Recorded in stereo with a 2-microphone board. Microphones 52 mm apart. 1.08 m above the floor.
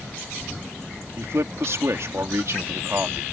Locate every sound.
1.2 s a man speaking: 60° right (ahead or behind)